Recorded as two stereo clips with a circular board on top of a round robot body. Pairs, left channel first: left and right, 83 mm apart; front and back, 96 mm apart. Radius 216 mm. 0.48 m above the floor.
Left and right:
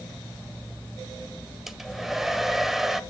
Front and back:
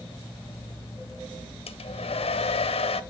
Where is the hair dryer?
Straight ahead, 0.8 m.